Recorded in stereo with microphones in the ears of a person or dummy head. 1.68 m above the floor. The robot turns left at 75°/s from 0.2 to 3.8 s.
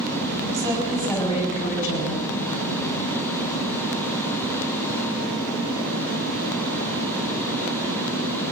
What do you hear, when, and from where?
0.5 s a woman speaking: 145° right, 6.5 m; by 2.2 s 90° left, 6.5 m